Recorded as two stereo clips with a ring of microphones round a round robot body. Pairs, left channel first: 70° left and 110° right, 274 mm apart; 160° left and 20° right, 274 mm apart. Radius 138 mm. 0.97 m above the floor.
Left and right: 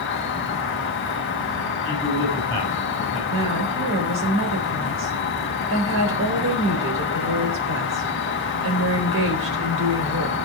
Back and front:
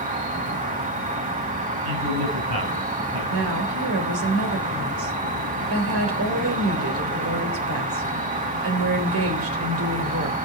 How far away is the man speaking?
About 8 m.